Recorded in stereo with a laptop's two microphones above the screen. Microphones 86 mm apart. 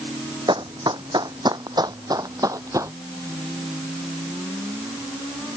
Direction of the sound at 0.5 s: 65° right (ahead or behind).